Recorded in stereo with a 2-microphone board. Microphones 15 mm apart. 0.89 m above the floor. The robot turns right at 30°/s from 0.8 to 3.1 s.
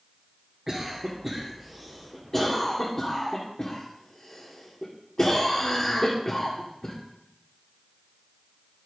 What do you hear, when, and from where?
0.7 s a cough: 10° right (ahead or behind), 1.9 m; by 7.0 s 55° left (ahead or behind), 1.9 m